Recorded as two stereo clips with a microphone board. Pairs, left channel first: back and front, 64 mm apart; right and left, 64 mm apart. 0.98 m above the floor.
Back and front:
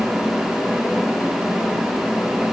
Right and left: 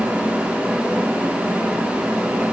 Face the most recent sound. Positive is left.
No sound to turn to.